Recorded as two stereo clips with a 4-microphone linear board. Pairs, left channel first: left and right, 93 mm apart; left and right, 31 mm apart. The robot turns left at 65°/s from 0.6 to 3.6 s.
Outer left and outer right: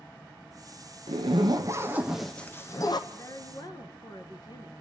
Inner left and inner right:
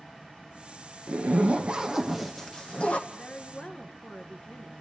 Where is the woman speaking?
140° left, 1.6 m; by 4.7 s 110° left, 1.6 m.